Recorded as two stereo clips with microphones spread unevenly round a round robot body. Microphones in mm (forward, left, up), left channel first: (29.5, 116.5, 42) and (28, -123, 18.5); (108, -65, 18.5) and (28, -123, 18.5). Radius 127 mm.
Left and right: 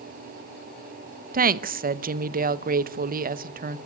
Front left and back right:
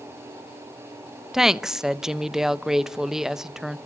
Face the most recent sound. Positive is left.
turn(degrees=-60)